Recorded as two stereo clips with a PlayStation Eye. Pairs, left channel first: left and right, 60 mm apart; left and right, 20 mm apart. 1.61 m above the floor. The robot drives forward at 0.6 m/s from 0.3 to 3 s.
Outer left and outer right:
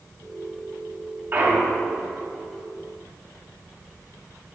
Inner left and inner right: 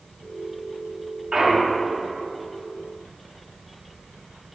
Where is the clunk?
35° right (ahead or behind), 1.5 m; by 1.9 s 30° right (ahead or behind), 1.7 m.